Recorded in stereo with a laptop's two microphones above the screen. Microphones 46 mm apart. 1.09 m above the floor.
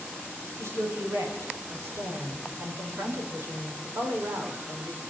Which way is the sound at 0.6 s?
85° right.